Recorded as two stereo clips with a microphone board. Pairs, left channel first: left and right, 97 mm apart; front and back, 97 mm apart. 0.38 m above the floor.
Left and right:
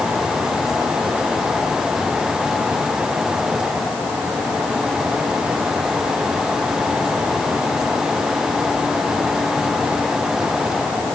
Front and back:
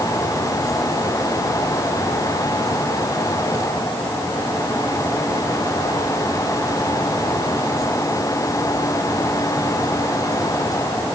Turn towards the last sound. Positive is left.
No sound to turn to.